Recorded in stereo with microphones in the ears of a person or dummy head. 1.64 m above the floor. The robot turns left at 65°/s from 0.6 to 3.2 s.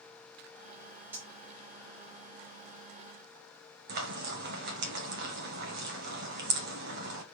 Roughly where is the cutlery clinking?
Centre.